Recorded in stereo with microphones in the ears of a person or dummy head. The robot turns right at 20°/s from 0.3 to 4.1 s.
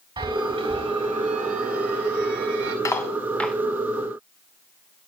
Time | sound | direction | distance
0.2 | a chime | 155° right | 3.5 m
2.9 | cutlery clinking | 15° left (ahead or behind) | 2 m